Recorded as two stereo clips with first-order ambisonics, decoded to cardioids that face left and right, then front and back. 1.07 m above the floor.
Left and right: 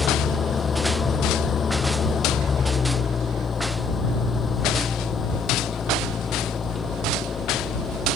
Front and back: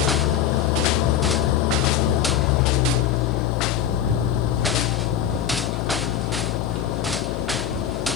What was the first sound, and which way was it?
An engine running, 20° left.